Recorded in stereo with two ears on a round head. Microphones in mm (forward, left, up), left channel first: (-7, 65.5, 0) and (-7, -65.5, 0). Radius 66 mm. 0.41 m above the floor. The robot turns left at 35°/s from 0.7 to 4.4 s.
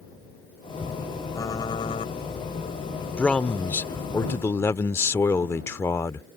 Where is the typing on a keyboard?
25° left (ahead or behind); by 2.1 s 45° left (ahead or behind).